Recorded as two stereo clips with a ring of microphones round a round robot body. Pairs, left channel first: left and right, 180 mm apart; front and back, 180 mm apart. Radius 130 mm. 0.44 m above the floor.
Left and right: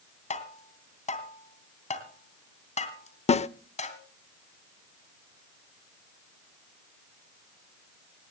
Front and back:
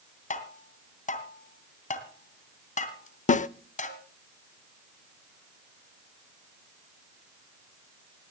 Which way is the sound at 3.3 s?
40° left.